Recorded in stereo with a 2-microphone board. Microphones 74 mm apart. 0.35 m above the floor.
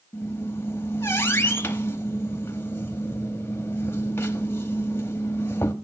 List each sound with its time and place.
0.1 s a squeak: 35° left (ahead or behind), 0.9 m